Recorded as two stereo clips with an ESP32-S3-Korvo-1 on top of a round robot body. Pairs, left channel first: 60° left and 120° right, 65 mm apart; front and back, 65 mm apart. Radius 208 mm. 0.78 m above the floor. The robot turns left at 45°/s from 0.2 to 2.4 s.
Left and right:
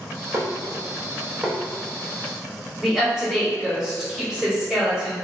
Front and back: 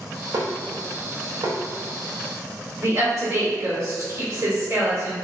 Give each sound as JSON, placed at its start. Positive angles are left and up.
{"t": 0.3, "sound": "dishes clattering", "azimuth_deg": -155, "distance_m": 0.8}
{"t": 2.8, "sound": "a woman speaking", "azimuth_deg": 150, "distance_m": 1.9}